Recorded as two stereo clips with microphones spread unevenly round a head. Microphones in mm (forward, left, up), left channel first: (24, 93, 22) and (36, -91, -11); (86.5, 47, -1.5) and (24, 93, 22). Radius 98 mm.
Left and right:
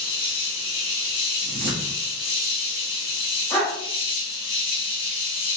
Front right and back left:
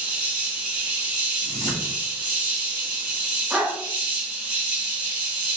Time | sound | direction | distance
0.0 | an insect | 110° left | 1.5 m
1.4 | a whoosh | 70° right | 1.3 m
3.5 | a dog barking | 155° left | 1.5 m